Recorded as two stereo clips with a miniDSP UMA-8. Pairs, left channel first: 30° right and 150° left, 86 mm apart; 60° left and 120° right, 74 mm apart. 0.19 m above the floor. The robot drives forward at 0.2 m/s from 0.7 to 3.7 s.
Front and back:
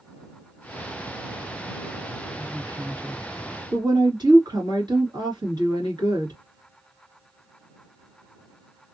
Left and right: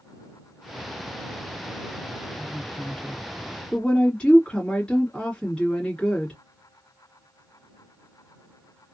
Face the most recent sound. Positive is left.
turn(degrees=135)